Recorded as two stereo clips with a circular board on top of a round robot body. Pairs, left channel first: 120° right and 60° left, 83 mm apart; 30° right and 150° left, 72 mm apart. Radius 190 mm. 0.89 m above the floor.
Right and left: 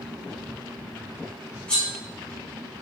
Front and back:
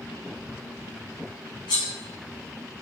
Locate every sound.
1.7 s cutlery clinking: 40° right, 0.9 m